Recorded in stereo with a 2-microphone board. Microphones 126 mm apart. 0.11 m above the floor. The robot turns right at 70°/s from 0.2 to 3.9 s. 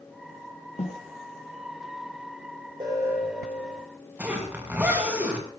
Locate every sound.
0.8 s a snare drum: 65° left (ahead or behind), 7.5 m; by 1.0 s 80° left, 7.5 m
2.8 s an alarm: 40° right, 8.5 m; by 3.8 s 35° left, 8.5 m
4.2 s a zipper: 10° right (ahead or behind), 6.5 m